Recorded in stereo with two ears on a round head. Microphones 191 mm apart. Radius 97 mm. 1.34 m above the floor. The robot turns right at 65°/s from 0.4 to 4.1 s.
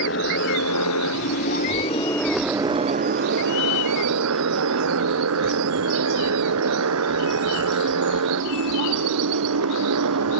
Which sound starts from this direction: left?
A motorcycle, at 0.0 s.